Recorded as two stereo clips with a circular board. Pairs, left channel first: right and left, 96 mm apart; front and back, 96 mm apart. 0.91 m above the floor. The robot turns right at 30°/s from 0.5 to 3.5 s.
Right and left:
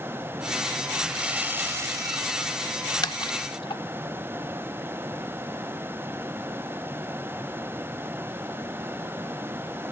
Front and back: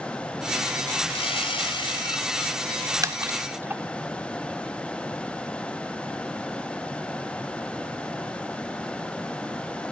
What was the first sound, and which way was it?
Sawing, 5° left.